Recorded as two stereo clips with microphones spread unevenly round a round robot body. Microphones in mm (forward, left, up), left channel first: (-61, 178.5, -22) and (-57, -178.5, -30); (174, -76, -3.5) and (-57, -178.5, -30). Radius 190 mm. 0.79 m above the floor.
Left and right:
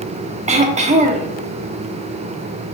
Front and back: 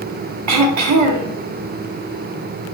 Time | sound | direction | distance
0.5 | throat clearing | 160° right | 0.8 m